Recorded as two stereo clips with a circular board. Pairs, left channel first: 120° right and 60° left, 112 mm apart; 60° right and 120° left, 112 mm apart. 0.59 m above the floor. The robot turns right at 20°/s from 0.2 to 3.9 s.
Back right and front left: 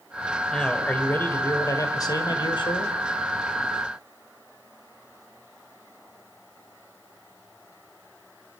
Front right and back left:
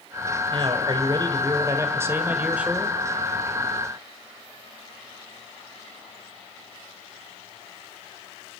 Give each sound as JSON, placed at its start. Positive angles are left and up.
{"t": 0.5, "sound": "a man speaking", "azimuth_deg": 155, "distance_m": 2.5}